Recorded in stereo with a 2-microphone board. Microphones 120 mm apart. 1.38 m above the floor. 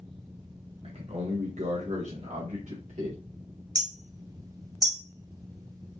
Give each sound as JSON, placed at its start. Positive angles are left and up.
{"t": 0.8, "sound": "a man speaking", "side_deg": -60, "distance_m": 1.7}
{"t": 3.8, "sound": "hammering", "side_deg": -35, "distance_m": 0.9}